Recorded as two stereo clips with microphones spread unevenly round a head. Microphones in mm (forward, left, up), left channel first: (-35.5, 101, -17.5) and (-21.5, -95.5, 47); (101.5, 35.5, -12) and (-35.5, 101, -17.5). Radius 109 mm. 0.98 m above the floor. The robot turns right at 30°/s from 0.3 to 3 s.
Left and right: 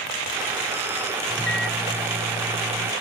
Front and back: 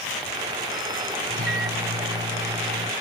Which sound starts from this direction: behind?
A microwave, at 1.3 s.